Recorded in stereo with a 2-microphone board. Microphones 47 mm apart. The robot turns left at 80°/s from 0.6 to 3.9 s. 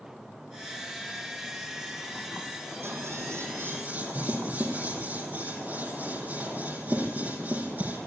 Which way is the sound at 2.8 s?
50° right (ahead or behind).